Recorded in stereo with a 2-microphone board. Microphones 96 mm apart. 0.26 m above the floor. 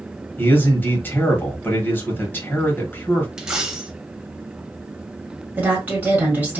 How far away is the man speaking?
About 0.9 m.